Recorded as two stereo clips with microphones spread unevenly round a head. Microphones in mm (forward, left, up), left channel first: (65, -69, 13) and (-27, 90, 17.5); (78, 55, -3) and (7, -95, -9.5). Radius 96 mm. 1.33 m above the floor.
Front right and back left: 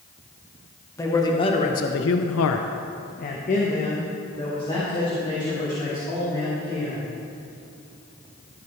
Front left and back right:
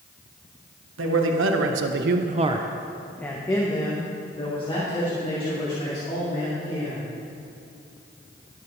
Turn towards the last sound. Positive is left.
turn(degrees=10)